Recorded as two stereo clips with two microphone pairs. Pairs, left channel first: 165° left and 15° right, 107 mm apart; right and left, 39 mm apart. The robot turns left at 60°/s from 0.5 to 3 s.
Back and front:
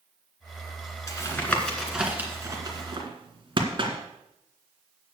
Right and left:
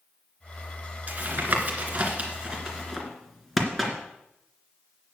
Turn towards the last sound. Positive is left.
turn(degrees=5)